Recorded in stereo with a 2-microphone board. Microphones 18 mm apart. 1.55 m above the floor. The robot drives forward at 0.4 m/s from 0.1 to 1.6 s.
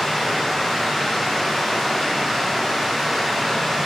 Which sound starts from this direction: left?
Running water, at 0.0 s.